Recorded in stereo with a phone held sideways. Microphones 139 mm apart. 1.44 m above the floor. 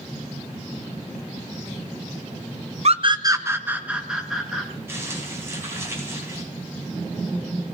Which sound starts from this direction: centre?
Crumpling, at 4.9 s.